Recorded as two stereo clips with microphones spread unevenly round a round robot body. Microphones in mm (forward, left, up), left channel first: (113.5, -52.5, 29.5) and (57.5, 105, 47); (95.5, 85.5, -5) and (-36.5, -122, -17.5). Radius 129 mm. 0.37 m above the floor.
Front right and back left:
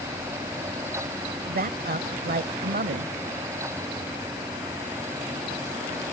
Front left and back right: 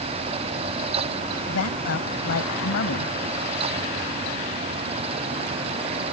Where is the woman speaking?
90° left.